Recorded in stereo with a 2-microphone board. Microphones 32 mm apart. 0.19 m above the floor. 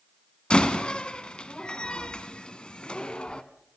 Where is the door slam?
30° left (ahead or behind), 1.3 m.